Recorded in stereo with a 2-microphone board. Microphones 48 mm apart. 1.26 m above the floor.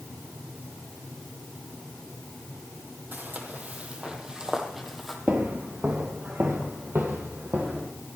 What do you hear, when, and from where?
3.1 s footsteps: 40° right (ahead or behind), 2.0 m; by 5.2 s centre (ahead or behind), 1.9 m
5.3 s footsteps: 45° right (ahead or behind), 1.8 m